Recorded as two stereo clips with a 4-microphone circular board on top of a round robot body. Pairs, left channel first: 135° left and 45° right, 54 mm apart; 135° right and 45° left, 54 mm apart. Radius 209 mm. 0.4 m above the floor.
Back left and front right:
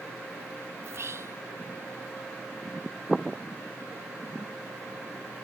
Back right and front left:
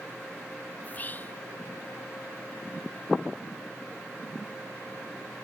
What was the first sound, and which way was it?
Whispering, 80° right.